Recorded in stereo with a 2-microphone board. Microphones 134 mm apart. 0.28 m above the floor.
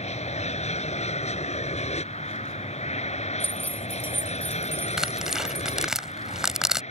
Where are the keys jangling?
15° right (ahead or behind).